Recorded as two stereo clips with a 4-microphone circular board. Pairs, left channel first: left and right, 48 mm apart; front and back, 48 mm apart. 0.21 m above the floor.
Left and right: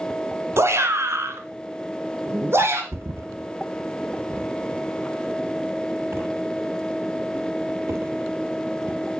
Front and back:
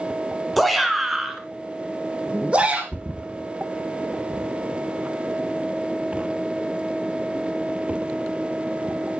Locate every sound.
0.6 s a shout: 85° right, 2.5 m; by 2.8 s 120° right, 3 m
2.9 s a thud: 115° right, 0.8 m